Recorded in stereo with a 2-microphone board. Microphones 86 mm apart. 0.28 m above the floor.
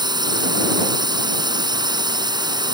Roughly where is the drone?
Right.